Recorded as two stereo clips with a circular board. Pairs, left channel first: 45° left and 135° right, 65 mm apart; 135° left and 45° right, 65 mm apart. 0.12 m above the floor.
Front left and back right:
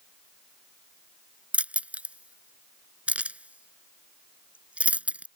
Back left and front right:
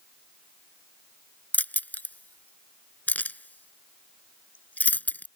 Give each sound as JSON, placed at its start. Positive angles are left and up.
{"t": 1.5, "sound": "keys jangling", "azimuth_deg": 175}